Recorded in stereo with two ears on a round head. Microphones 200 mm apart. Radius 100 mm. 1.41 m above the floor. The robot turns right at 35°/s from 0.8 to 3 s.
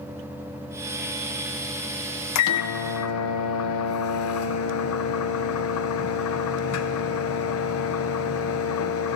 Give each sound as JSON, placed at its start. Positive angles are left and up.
{"t": 2.4, "sound": "a microwave", "side_deg": 80, "distance_m": 0.7}